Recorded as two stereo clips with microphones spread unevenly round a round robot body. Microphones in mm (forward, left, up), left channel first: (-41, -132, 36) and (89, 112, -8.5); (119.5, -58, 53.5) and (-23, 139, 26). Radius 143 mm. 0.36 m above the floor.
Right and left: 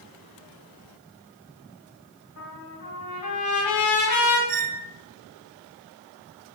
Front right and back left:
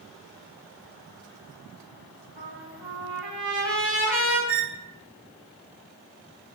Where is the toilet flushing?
No toilet flushing in this recording.